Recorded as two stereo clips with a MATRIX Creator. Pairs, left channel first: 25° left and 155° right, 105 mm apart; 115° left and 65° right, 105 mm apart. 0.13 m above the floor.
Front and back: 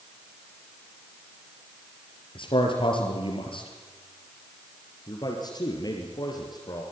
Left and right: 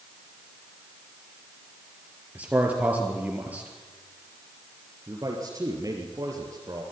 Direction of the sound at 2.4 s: 5° left.